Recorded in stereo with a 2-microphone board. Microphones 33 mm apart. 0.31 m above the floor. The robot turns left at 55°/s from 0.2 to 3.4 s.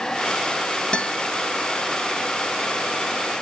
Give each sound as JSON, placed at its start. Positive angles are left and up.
{"t": 0.9, "sound": "a guitar", "side_deg": 30, "distance_m": 0.9}